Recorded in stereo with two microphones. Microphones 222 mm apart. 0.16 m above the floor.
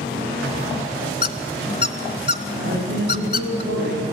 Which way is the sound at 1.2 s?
45° left (ahead or behind).